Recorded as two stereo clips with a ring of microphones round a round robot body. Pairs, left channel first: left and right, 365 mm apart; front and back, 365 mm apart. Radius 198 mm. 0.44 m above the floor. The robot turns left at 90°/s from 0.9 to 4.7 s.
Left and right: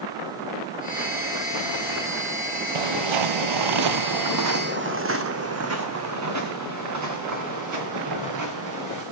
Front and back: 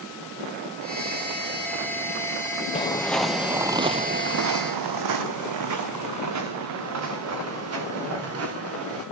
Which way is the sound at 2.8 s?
75° right.